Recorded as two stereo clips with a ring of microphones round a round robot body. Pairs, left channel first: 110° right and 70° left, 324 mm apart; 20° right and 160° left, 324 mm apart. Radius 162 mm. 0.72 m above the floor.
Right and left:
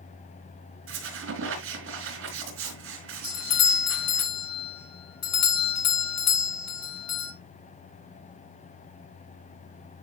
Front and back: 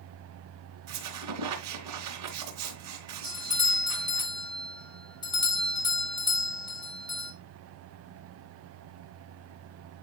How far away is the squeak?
About 3 m.